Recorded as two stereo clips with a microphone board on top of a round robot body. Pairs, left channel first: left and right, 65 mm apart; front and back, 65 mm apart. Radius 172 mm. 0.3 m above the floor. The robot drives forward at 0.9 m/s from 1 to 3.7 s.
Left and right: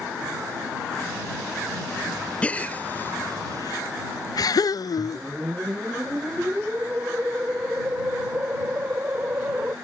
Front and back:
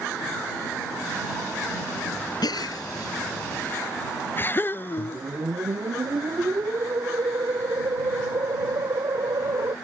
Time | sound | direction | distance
2.4 | a gasp | 20° left | ?
5.0 | a whoosh | 155° right | ?